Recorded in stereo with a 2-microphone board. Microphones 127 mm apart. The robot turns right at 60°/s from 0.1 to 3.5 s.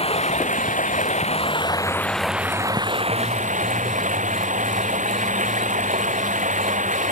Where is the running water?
50° left; by 7.1 s 105° right.